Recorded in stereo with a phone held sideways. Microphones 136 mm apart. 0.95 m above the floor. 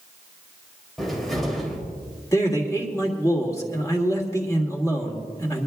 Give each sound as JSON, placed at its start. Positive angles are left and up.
{"t": 1.0, "sound": "a cupboard door", "side_deg": 0, "distance_m": 3.0}
{"t": 2.3, "sound": "a man speaking", "side_deg": 25, "distance_m": 2.0}